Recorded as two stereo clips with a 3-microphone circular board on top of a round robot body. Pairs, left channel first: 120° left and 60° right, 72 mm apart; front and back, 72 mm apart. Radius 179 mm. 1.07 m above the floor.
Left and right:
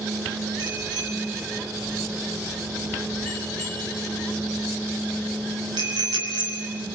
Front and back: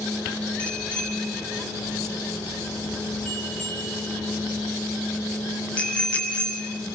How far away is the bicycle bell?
About 5.5 m.